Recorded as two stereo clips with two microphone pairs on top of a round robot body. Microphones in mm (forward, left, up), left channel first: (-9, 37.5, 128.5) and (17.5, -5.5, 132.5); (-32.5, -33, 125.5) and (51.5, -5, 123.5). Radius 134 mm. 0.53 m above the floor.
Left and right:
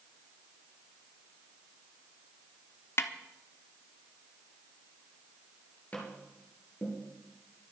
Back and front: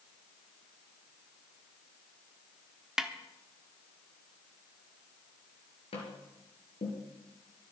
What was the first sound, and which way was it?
A snare drum, 100° left.